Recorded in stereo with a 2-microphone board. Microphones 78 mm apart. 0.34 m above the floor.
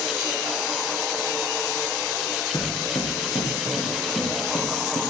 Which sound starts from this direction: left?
Footsteps, at 2.5 s.